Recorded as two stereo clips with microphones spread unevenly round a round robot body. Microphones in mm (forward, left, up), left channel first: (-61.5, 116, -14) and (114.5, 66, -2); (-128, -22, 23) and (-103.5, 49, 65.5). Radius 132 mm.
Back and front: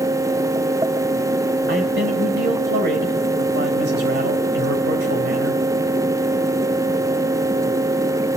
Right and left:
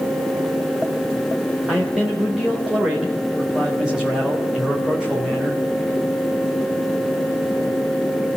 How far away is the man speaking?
About 2.5 m.